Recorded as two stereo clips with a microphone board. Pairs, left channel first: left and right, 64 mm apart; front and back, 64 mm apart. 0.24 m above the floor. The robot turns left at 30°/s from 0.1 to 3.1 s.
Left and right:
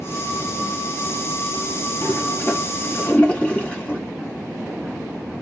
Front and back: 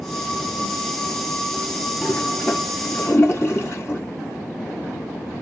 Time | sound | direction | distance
2.0 | a toilet flushing | 60° left | 1.9 m